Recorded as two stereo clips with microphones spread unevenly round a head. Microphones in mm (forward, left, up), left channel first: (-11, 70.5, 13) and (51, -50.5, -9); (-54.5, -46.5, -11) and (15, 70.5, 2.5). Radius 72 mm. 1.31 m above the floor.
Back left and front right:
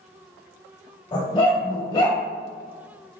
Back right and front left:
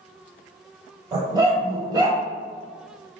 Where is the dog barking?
95° left, 1.4 m.